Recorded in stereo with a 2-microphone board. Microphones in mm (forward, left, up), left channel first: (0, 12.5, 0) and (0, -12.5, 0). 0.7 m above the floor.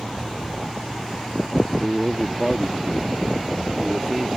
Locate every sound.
1.8 s a man speaking: 5° right (ahead or behind)